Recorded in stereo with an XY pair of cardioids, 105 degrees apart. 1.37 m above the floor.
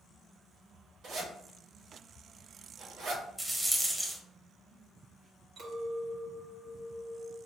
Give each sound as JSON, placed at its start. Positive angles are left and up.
{"t": 1.0, "sound": "a zipper", "azimuth_deg": -70, "distance_m": 1.5}
{"t": 3.4, "sound": "a rattle", "azimuth_deg": -15, "distance_m": 0.9}
{"t": 5.6, "sound": "a clink", "azimuth_deg": -70, "distance_m": 1.4}